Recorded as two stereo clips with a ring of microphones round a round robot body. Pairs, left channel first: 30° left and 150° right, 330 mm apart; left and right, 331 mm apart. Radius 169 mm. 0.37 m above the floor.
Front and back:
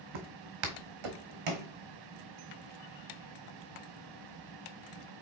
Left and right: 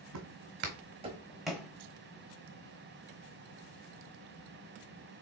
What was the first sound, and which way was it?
Footsteps, 135° right.